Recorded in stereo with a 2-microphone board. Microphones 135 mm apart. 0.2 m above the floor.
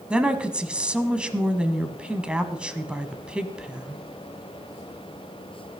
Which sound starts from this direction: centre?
A woman speaking, at 0.1 s.